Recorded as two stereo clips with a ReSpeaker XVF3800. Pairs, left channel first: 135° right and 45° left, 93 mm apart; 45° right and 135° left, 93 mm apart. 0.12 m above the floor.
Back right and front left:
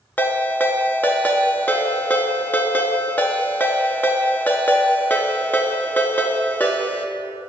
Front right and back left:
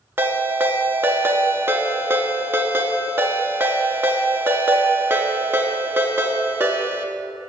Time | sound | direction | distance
0.2 | a ringtone | 175° left | 0.5 m